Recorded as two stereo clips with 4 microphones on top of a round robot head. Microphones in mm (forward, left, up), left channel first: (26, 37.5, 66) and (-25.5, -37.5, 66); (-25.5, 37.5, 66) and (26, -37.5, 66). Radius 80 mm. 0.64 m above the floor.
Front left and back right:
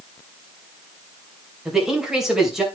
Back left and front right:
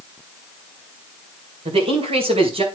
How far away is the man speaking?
About 3 m.